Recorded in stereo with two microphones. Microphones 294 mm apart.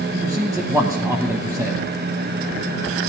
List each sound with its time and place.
0.1 s a man speaking: 10° right (ahead or behind), 1.1 m